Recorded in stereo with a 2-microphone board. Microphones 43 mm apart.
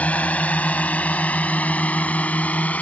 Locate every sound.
0.0 s a drone: 35° left (ahead or behind)